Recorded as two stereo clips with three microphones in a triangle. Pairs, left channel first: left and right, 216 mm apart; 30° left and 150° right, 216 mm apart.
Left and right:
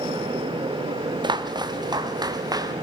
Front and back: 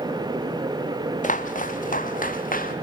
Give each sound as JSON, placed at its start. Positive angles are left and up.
{"t": 1.2, "sound": "footsteps", "azimuth_deg": -20, "distance_m": 2.0}